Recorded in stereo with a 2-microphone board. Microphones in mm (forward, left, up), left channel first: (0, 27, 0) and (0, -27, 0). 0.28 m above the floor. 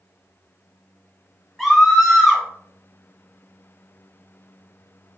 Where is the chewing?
No chewing in this recording.